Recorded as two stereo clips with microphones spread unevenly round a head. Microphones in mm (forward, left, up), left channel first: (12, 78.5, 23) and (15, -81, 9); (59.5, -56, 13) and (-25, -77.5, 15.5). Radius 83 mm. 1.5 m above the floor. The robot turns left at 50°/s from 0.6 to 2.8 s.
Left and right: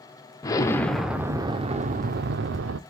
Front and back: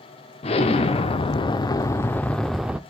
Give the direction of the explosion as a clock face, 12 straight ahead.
11 o'clock.